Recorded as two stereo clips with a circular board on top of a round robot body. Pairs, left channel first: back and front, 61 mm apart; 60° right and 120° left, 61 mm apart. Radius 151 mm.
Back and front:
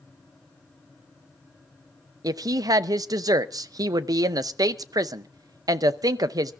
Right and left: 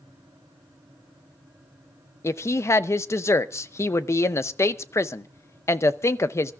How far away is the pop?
I don't hear a pop.